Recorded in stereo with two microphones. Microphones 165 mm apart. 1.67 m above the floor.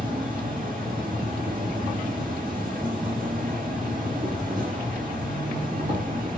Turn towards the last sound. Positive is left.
turn(degrees=-55)  # may be behind; listen again after turning